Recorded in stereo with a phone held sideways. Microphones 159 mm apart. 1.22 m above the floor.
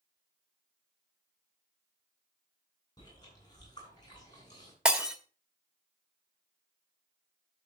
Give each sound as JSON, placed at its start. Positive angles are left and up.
{"t": 3.0, "sound": "chewing", "side_deg": 25, "distance_m": 9.0}
{"t": 4.8, "sound": "breaking glass", "side_deg": -5, "distance_m": 1.6}